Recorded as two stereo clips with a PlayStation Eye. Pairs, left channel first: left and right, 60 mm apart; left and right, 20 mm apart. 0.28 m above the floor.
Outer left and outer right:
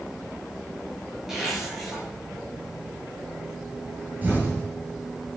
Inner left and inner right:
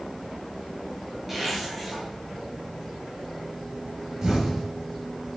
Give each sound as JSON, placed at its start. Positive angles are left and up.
{"t": 1.3, "sound": "a zipper", "side_deg": -5, "distance_m": 5.5}
{"t": 4.2, "sound": "an explosion", "side_deg": -30, "distance_m": 5.5}